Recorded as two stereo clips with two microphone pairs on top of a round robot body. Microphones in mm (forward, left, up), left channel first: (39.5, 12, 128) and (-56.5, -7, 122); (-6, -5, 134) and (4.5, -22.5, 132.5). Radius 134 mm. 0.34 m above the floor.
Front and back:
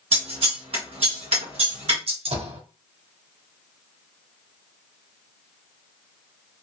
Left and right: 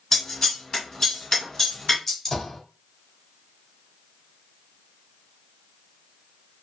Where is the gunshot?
165° right, 1.5 m.